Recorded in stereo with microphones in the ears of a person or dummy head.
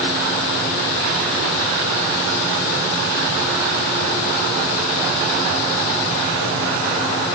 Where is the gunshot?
No gunshot in this recording.